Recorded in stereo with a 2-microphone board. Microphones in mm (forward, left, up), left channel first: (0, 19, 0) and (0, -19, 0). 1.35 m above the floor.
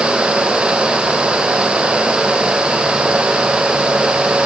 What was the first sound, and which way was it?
Only background noise.